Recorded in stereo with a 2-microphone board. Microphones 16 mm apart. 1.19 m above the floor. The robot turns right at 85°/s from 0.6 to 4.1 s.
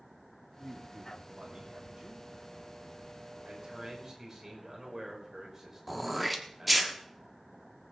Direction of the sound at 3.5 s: 75° right.